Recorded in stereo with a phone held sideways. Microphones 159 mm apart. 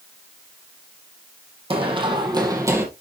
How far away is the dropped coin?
No dropped coin in this recording.